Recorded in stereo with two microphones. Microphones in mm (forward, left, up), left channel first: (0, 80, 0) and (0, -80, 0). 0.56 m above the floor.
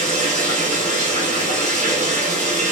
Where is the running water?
50° right (ahead or behind), 1.3 m.